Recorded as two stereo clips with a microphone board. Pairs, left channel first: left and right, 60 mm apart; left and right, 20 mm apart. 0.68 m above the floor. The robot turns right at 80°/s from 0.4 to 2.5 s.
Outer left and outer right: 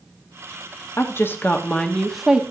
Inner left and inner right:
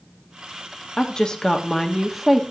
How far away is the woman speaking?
About 1.0 m.